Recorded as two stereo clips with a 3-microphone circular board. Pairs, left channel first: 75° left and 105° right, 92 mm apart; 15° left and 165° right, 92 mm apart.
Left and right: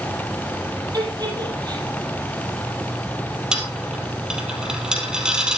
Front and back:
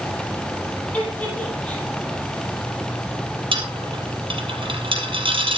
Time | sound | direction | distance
0.9 | a giggle | 60° right | 8.5 m
3.5 | a dropped coin | 175° left | 3 m